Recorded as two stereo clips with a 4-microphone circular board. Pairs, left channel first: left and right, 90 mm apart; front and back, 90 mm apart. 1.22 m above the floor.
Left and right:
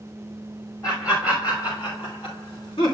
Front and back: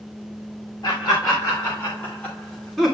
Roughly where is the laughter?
Ahead left.